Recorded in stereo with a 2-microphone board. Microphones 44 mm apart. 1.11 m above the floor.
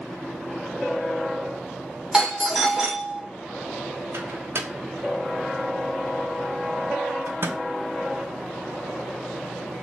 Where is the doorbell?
10° right (ahead or behind), 1.4 m.